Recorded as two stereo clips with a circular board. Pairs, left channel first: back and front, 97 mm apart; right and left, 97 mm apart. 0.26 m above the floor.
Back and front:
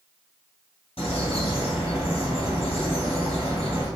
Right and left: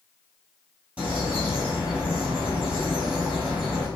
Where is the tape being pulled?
I don't hear tape being pulled.